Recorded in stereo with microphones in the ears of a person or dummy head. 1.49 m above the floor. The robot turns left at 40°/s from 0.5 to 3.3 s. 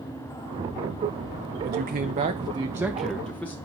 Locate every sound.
1.6 s a man speaking: 120° right, 0.8 m; by 3.5 s 170° left, 0.8 m